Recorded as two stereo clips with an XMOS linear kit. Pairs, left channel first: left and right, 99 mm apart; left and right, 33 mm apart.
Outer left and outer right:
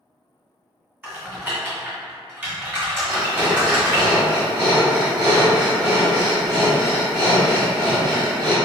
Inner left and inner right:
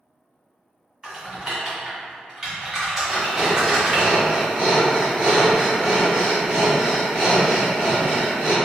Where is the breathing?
50° right (ahead or behind), 1.8 m.